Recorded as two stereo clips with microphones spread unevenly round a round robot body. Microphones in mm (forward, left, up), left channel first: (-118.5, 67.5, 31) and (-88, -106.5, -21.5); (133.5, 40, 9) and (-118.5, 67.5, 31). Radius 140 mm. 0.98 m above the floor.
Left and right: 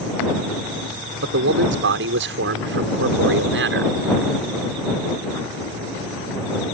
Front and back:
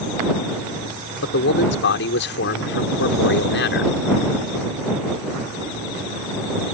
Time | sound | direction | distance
1.2 | a man speaking | 55° right | ?